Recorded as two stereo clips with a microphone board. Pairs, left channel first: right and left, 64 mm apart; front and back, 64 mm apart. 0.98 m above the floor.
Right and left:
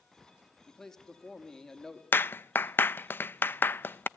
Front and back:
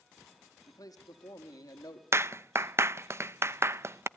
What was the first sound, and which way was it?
A man speaking, 10° right.